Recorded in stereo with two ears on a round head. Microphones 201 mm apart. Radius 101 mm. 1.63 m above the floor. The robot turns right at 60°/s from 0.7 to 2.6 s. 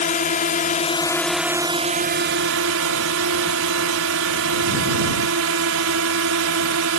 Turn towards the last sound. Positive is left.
turn(degrees=-105)